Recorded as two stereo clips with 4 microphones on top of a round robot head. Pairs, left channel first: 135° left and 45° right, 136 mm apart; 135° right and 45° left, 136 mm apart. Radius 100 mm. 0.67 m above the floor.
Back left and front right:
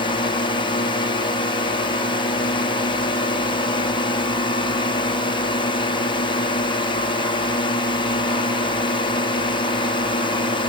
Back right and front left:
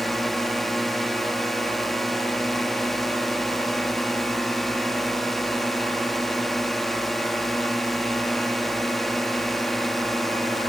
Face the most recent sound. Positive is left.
turn(degrees=140)